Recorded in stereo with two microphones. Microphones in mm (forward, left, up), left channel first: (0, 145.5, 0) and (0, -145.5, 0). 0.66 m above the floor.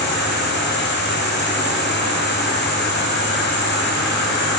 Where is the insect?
40° left (ahead or behind), 4 m.